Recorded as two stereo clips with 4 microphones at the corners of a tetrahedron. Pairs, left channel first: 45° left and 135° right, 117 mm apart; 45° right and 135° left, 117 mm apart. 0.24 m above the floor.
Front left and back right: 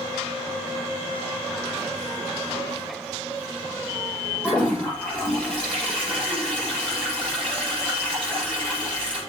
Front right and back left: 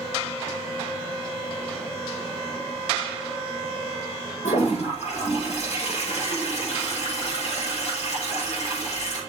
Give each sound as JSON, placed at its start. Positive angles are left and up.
{"t": 4.4, "sound": "a toilet flushing", "azimuth_deg": -35, "distance_m": 6.5}